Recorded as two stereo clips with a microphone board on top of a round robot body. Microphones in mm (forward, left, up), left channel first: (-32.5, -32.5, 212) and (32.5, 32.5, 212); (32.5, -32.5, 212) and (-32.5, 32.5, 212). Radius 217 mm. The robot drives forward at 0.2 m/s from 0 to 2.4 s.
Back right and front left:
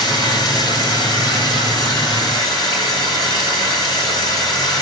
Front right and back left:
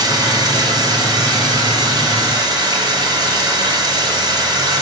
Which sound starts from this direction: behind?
Running water, at 0.0 s.